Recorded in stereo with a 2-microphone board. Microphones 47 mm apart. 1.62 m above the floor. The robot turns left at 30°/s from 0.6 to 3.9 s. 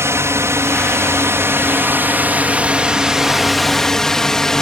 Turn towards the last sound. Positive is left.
turn(degrees=10)  # may be behind; listen again after turning